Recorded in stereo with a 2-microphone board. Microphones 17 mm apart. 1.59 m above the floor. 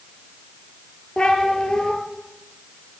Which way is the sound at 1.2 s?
55° left (ahead or behind).